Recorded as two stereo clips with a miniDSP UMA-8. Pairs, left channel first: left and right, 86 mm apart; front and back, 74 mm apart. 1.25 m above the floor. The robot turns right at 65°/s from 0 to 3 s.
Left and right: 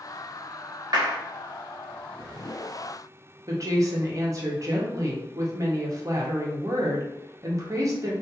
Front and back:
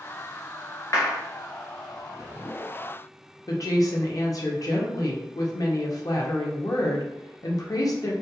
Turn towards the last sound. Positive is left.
turn(degrees=-40)